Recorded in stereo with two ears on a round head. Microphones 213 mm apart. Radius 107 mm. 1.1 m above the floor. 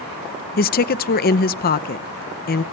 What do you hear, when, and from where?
0.6 s a woman speaking: 40° left (ahead or behind), 0.7 m